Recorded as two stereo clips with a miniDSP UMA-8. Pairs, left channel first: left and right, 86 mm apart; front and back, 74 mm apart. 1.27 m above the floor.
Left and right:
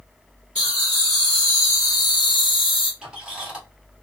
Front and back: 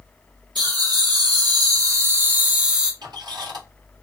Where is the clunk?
I don't hear a clunk.